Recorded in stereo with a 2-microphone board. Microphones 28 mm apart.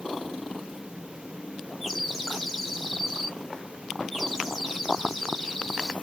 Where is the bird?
5° right (ahead or behind), 1.6 m.